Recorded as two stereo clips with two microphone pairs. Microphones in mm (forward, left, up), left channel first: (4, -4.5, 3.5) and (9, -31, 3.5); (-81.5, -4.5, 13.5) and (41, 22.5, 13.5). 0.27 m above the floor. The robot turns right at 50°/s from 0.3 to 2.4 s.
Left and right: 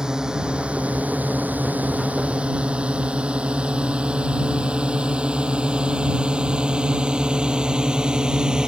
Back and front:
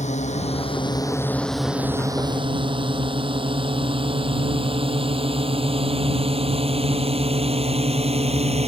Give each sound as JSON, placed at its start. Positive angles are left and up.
{"t": 0.0, "sound": "a drone", "azimuth_deg": -145}